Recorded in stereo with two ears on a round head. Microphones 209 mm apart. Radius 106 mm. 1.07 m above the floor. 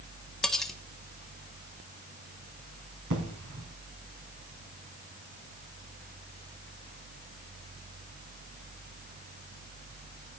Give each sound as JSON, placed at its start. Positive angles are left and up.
{"t": 0.4, "sound": "cutlery clinking", "side_deg": 0, "distance_m": 1.1}
{"t": 3.1, "sound": "an explosion", "side_deg": -65, "distance_m": 2.5}